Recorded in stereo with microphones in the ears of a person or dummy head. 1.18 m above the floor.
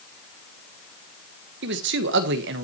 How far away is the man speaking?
About 1.4 m.